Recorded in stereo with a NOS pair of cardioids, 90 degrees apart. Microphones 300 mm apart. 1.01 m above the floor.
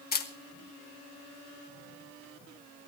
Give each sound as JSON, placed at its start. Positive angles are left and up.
{"t": 0.1, "sound": "a camera shutter", "azimuth_deg": 35, "distance_m": 2.0}